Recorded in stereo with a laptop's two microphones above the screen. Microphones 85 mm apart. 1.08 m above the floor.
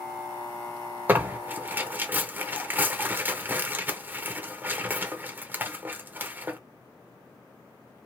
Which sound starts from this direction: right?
Tearing paper, at 1.1 s.